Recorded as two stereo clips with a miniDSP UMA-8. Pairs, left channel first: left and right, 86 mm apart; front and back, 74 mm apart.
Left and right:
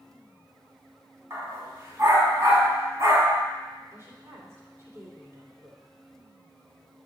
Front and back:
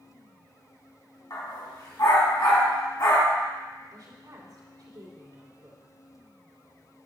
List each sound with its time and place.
1.3 s a dog barking: 35° right, 2.5 m
3.9 s a woman speaking: 150° right, 2.5 m